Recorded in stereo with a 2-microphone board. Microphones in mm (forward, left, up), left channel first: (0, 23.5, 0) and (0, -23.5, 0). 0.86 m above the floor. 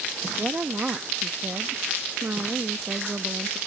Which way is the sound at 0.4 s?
40° right (ahead or behind).